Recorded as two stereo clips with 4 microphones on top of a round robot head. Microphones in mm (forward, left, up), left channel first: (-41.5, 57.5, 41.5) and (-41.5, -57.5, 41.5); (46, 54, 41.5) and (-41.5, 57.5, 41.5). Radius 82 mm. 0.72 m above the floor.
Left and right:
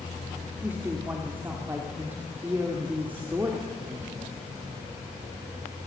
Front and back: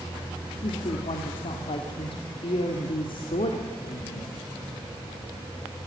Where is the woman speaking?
15° right, 2.0 m.